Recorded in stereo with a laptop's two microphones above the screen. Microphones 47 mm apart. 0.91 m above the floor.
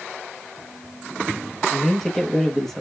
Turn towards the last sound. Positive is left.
turn(degrees=5)  # may be behind; listen again after turning